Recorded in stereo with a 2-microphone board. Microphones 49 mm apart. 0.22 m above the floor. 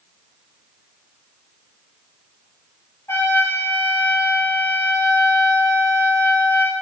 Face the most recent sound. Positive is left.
turn(degrees=60)  # may be behind; listen again after turning